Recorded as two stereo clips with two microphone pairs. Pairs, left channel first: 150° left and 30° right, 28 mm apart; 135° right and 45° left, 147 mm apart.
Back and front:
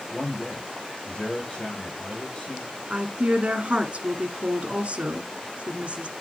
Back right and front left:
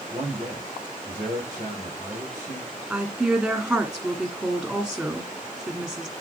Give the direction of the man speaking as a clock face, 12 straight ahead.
8 o'clock.